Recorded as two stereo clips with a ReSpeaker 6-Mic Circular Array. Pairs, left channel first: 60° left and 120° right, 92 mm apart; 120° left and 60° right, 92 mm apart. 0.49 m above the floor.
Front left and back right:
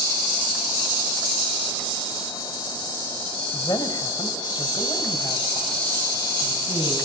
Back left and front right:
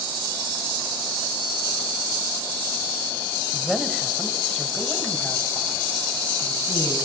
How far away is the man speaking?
About 3 m.